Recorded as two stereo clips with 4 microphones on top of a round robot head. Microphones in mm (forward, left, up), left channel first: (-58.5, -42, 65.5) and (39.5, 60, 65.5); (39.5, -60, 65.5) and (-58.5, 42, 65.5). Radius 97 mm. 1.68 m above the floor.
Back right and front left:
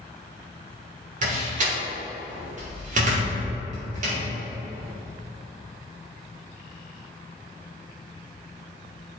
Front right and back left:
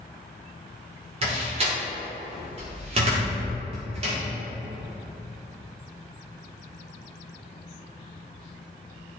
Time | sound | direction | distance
1.2 | a door slam | 85° left | 1.9 m